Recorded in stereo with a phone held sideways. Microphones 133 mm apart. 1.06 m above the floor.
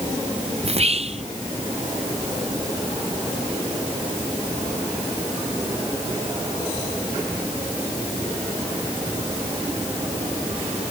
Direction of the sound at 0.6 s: 50° right (ahead or behind).